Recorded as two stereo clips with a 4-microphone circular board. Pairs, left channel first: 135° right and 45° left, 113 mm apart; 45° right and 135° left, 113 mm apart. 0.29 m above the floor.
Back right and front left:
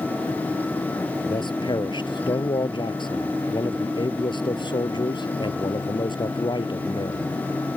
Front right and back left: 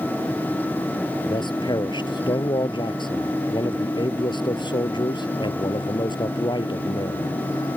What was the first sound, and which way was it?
A man speaking, 90° right.